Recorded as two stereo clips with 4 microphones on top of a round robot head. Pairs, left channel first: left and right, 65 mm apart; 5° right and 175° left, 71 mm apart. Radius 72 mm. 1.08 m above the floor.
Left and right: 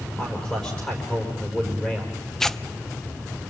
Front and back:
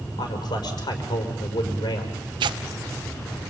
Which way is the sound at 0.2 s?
15° left.